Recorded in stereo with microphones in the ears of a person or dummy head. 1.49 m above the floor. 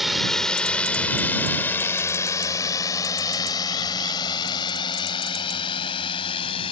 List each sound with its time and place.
0.0 s a drone: 5° right (ahead or behind); by 6.7 s 30° left (ahead or behind)